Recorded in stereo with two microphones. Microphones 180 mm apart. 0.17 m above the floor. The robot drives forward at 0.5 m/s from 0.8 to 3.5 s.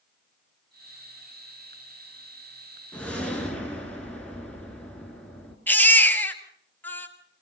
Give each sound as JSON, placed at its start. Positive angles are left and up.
{"t": 2.9, "sound": "a whoosh", "side_deg": 5, "distance_m": 2.0}
{"t": 5.7, "sound": "a baby crying", "side_deg": 10, "distance_m": 1.5}